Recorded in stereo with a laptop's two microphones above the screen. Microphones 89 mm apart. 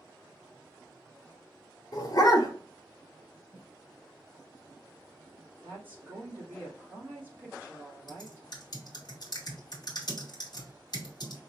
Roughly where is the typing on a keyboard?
Left.